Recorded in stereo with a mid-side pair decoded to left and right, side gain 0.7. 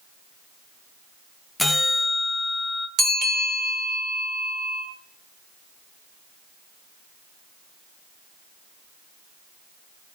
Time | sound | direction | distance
1.6 | a bell | 5° left | 0.6 m
3.0 | a bell | 55° right | 3 m